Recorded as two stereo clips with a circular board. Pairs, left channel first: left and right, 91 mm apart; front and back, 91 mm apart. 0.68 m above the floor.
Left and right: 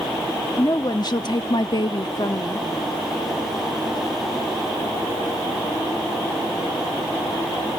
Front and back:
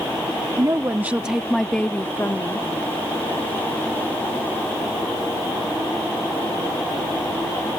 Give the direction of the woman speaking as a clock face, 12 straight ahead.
7 o'clock.